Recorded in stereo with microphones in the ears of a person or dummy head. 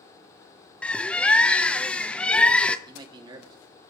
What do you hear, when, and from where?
0.8 s a bird: 5° left (ahead or behind), 0.6 m
2.9 s a man speaking: 25° right (ahead or behind), 2.5 m